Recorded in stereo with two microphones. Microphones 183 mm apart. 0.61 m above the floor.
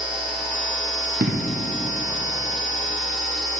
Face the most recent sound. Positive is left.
turn(degrees=-65)  # may be behind; listen again after turning